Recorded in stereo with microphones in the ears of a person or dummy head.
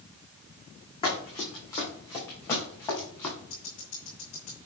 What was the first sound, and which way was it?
Running footsteps, 25° left (ahead or behind).